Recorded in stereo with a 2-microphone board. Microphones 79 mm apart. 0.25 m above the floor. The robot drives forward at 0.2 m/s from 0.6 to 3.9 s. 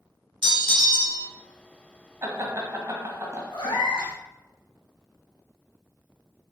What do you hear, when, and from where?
0.4 s a bell: 85° right, 0.7 m; by 1.3 s 80° right, 0.7 m
2.2 s laughter: 40° right (ahead or behind), 1.7 m
3.5 s a cat meowing: 85° left, 1.6 m